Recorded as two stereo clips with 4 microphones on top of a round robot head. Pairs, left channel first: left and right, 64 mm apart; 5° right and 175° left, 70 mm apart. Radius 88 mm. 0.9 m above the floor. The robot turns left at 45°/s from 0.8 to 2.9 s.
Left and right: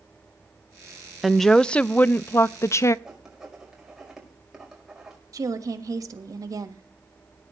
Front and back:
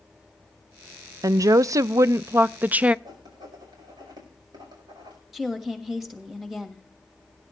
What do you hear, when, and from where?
1.2 s a woman speaking: straight behind, 0.5 m; by 3.0 s 105° left, 0.5 m
3.0 s writing: 175° right, 5 m
5.3 s a woman speaking: 95° right, 1.6 m